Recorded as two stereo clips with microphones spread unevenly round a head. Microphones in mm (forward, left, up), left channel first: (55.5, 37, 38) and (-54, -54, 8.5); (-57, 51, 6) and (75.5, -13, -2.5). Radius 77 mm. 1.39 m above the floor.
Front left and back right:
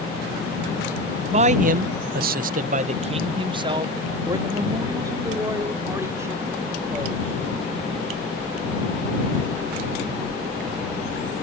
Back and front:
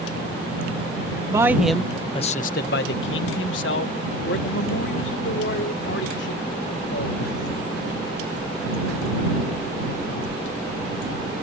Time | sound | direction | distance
1.3 | a man speaking | 95° right | ?